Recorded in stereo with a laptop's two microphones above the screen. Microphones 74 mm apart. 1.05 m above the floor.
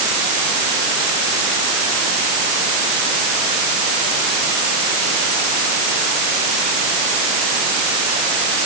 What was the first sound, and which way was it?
Only background noise.